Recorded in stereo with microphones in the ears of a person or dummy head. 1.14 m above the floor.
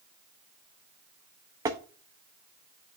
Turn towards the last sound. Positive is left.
turn(degrees=-20)  # may be behind; listen again after turning